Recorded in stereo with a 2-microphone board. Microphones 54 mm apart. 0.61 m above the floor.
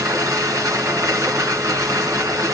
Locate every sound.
0.0 s running water: 75° right (ahead or behind), 3 m